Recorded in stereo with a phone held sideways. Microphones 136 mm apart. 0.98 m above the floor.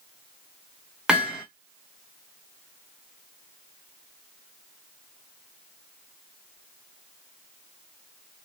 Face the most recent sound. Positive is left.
turn(degrees=-5)  # may be behind; listen again after turning